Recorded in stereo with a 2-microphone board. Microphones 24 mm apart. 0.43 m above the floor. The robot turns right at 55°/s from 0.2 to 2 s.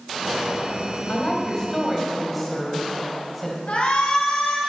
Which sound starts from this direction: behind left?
A woman speaking, at 1.1 s.